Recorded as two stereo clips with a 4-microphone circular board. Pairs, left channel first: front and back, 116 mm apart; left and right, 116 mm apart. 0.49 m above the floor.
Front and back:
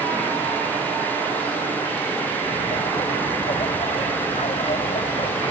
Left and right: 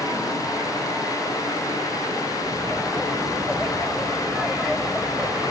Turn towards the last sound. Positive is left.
turn(degrees=0)